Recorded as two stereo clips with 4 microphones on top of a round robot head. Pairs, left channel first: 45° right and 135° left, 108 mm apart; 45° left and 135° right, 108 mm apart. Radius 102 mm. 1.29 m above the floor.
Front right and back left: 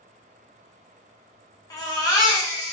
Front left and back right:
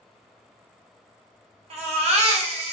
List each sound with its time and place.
1.7 s a baby crying: 105° right, 0.7 m